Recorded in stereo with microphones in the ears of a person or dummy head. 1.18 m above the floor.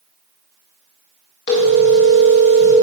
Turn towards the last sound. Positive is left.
turn(degrees=65)  # may be behind; listen again after turning